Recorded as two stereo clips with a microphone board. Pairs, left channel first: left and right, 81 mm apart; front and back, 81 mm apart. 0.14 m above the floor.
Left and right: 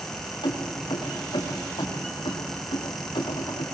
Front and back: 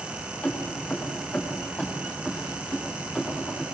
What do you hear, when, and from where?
0.4 s keys jangling: 70° left, 7.5 m; by 3.6 s 85° left, 7.5 m